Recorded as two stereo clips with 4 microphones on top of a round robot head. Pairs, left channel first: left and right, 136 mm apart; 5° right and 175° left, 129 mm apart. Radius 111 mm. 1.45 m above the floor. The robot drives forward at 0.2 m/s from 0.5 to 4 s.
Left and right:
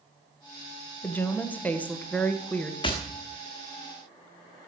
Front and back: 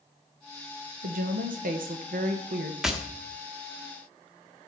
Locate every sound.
1.0 s a woman speaking: 170° left, 1.4 m
2.8 s tapping: 90° left, 1.0 m; by 2.9 s 95° left, 1.0 m